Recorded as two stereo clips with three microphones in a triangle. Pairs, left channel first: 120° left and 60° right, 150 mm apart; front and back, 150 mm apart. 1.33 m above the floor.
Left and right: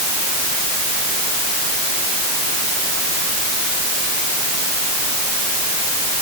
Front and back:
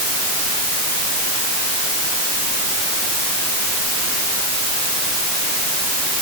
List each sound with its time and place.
Only background noise.